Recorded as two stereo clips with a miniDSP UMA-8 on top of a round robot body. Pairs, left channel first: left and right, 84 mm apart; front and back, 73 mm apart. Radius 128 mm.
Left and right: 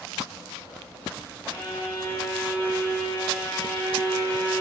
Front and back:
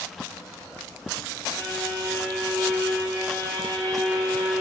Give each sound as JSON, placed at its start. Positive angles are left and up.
{"t": 1.5, "sound": "a violin", "azimuth_deg": 150, "distance_m": 6.5}